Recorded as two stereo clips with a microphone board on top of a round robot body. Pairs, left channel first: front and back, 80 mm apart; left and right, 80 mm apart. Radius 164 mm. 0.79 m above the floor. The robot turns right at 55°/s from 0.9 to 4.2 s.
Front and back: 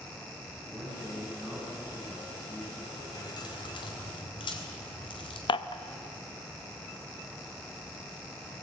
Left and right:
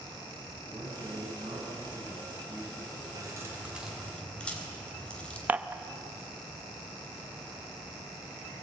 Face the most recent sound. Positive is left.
turn(degrees=-20)